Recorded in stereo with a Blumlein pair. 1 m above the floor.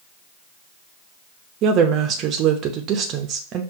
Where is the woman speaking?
35° right, 0.6 m.